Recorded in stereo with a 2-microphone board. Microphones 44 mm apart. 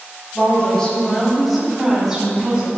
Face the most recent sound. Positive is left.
turn(degrees=-20)  # may be behind; listen again after turning